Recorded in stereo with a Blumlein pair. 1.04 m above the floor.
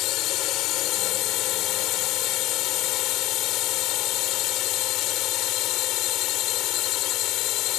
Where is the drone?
35° left.